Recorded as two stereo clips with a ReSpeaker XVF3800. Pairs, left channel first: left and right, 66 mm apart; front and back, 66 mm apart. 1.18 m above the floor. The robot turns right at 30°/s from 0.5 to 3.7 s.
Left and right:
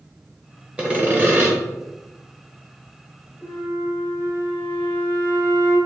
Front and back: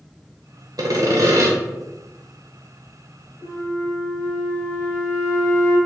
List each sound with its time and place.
0.8 s sawing: 165° right, 0.8 m; by 1.5 s 140° right, 0.8 m
3.4 s a flute: 35° left, 1.3 m; by 5.8 s 45° left, 1.3 m